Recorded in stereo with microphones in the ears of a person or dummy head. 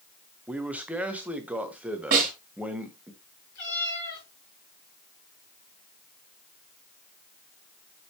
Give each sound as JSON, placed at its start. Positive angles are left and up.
{"t": 0.5, "sound": "a man speaking", "side_deg": -10, "distance_m": 1.1}
{"t": 2.1, "sound": "a snare drum", "side_deg": -45, "distance_m": 2.5}
{"t": 3.5, "sound": "a cat meowing", "side_deg": 55, "distance_m": 5.0}